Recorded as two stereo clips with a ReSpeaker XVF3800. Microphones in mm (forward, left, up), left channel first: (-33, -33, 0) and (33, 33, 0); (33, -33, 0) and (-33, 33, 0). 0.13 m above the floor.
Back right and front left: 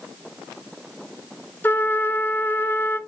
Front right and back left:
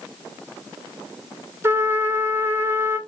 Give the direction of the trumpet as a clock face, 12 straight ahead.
6 o'clock.